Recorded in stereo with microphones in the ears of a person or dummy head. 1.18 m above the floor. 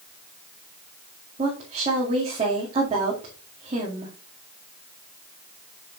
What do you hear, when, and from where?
1.4 s a woman speaking: 25° right (ahead or behind), 2.5 m